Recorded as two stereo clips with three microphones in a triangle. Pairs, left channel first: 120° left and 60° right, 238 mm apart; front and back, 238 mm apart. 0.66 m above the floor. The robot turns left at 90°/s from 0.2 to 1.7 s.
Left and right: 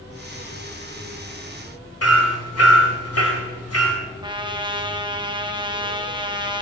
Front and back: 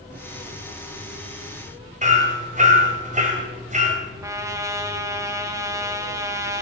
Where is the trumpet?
115° right, 1.2 m.